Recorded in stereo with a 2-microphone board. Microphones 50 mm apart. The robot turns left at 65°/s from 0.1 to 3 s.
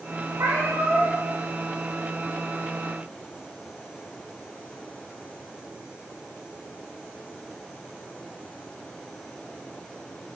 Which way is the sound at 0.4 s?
70° right.